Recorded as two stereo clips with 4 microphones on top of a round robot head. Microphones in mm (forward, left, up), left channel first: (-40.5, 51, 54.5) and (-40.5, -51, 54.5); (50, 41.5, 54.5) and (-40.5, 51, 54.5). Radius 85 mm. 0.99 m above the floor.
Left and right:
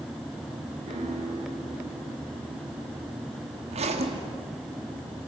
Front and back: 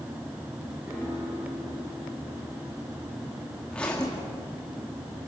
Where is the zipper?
85° right, 2.5 m.